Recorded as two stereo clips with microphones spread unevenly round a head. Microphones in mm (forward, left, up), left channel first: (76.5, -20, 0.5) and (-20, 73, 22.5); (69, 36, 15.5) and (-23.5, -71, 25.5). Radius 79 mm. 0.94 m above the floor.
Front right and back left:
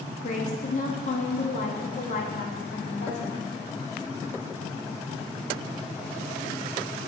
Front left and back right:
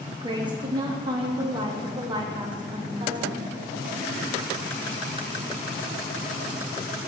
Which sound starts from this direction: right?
A woman speaking, at 0.2 s.